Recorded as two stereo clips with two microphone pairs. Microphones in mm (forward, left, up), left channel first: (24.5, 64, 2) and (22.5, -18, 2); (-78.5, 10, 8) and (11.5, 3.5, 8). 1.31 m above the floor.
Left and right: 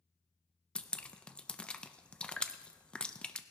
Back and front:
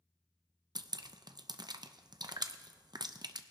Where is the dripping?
15° left, 0.5 m.